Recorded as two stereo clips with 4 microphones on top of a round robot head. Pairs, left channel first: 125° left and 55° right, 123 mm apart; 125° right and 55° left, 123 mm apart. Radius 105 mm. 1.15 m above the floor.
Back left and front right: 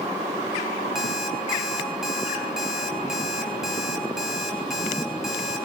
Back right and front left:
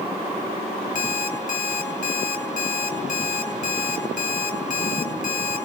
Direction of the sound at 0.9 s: 140° right.